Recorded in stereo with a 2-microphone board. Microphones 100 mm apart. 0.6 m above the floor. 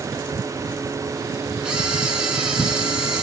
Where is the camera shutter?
10° right (ahead or behind), 7.5 m.